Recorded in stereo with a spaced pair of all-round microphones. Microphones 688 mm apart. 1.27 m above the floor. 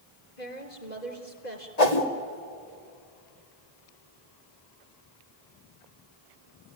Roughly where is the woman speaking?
Left.